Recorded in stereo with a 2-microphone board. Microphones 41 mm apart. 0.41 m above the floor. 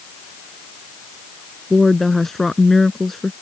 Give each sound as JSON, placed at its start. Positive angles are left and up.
{"t": 1.7, "sound": "a woman speaking", "side_deg": 5}